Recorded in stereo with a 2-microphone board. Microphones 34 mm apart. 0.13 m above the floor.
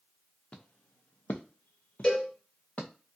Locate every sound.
0.5 s footsteps: 40° left (ahead or behind), 0.8 m; by 2.9 s 50° left (ahead or behind), 1.2 m
2.0 s a cowbell: 25° left (ahead or behind), 2 m